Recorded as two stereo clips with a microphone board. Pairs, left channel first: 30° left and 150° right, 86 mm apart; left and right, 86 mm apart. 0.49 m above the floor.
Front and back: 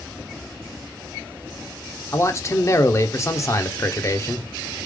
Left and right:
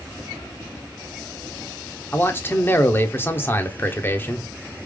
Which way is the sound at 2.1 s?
45° left.